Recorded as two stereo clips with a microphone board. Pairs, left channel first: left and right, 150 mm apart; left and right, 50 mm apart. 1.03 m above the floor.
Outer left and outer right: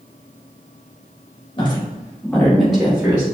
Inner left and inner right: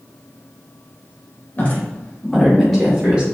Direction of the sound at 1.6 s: 35° left (ahead or behind).